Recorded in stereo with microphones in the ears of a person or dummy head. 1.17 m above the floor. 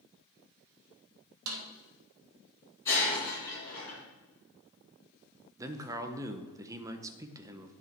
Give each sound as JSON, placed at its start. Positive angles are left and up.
{"t": 1.5, "sound": "a snare drum", "side_deg": -80, "distance_m": 1.3}
{"t": 2.9, "sound": "breaking glass", "side_deg": 10, "distance_m": 3.5}
{"t": 5.6, "sound": "a man speaking", "side_deg": -20, "distance_m": 0.7}